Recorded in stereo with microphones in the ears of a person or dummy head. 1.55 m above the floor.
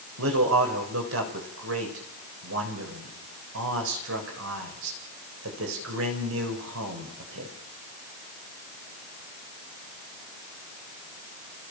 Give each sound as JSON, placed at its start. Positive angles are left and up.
{"t": 0.2, "sound": "a man speaking", "side_deg": -80, "distance_m": 7.0}